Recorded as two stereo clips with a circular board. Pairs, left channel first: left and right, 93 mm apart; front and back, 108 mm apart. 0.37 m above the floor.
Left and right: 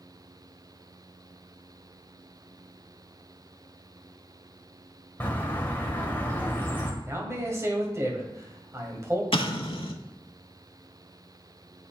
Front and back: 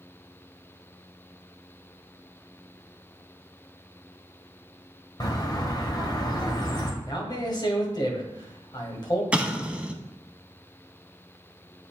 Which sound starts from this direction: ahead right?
A man speaking, at 7.0 s.